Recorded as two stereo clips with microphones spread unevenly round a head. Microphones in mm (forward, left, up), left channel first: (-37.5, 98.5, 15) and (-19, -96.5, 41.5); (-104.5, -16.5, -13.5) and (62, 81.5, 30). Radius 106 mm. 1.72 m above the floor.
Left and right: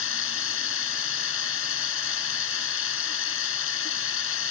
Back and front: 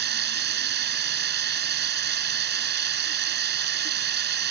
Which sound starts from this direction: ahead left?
Running water, at 0.0 s.